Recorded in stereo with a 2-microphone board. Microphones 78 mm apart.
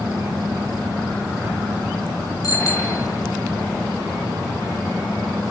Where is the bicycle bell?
45° left (ahead or behind), 2.5 m.